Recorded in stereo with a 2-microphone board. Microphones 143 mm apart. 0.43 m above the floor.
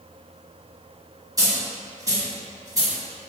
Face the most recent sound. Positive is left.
turn(degrees=-30)  # may be behind; listen again after turning